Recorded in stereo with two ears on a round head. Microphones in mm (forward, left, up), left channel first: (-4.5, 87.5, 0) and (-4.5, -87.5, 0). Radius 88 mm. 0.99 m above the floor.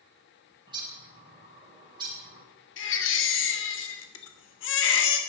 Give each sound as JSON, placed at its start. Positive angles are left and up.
{"t": 0.7, "sound": "a bird", "side_deg": -25, "distance_m": 3.0}
{"t": 2.8, "sound": "a baby crying", "side_deg": 70, "distance_m": 1.6}